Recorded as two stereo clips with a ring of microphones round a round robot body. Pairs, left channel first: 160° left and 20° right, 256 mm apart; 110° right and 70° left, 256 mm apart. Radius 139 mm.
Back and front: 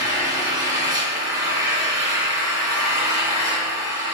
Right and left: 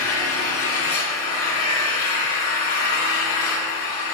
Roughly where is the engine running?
Right.